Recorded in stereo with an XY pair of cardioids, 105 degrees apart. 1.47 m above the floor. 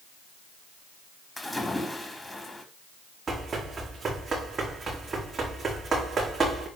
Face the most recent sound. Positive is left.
turn(degrees=-40)